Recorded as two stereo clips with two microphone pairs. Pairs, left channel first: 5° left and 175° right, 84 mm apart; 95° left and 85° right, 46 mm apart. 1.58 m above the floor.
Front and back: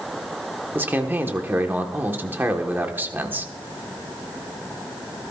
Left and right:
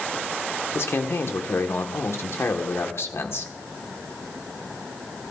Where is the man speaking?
120° left, 1.4 m.